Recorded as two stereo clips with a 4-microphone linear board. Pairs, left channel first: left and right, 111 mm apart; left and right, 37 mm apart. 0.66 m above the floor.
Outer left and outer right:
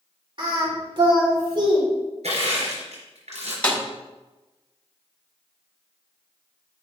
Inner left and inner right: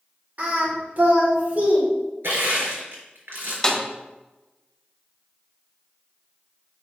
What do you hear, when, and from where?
0.4 s singing: 50° right (ahead or behind), 2 m
2.2 s crushing: 85° right, 3.5 m
3.6 s a snare drum: 10° left (ahead or behind), 1.4 m